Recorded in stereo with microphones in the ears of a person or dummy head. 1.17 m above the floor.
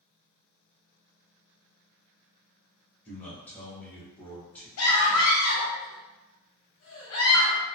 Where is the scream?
75° left (ahead or behind), 0.7 m.